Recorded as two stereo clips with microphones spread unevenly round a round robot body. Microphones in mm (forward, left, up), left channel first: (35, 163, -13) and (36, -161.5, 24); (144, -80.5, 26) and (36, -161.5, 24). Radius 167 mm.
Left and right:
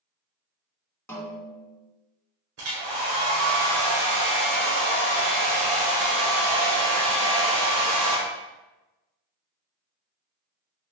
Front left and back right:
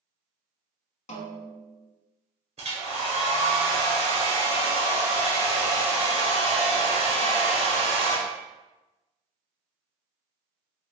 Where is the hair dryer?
130° right, 1.2 m.